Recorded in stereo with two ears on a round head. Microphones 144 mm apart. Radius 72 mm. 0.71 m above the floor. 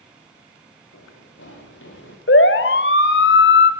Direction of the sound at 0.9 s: 85° left.